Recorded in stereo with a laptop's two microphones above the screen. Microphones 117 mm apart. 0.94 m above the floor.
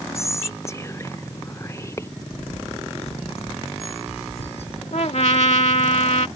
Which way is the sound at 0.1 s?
25° left (ahead or behind).